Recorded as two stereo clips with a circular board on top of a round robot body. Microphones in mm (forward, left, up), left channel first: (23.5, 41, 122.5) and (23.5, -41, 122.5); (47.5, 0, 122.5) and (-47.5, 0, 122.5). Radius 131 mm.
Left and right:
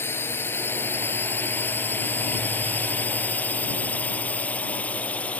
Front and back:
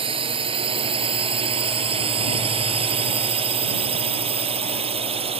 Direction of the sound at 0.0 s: 155° left.